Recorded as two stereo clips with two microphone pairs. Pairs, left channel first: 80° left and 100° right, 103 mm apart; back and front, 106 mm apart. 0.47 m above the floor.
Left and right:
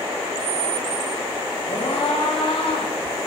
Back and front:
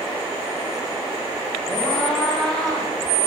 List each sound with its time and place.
1.7 s a scream: 95° left, 9 m